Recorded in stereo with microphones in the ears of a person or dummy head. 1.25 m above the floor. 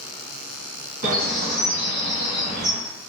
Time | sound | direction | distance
1.0 | a bird | 50° right (ahead or behind) | 1.5 m